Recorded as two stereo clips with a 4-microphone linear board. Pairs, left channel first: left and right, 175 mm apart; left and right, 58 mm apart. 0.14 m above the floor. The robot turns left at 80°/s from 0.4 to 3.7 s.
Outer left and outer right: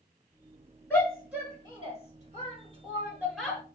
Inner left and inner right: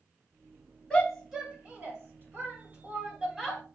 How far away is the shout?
About 1.6 m.